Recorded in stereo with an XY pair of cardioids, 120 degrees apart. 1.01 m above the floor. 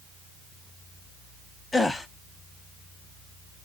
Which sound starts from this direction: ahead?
A gasp, at 1.7 s.